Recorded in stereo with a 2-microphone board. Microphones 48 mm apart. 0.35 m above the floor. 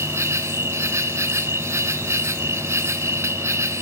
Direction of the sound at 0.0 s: 65° right (ahead or behind).